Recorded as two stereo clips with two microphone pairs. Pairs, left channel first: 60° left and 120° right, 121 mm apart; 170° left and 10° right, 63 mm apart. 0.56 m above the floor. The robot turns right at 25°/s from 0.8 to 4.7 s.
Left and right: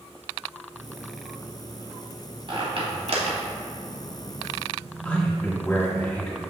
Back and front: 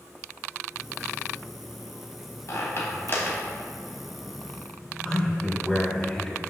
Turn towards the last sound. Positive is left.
turn(degrees=120)